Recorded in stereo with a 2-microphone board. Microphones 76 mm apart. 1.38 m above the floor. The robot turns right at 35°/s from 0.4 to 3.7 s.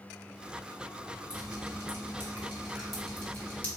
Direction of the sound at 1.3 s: 60° right (ahead or behind).